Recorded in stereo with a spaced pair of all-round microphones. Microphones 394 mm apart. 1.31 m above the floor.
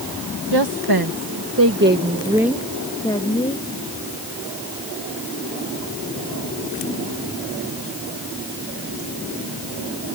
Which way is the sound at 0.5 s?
80° right.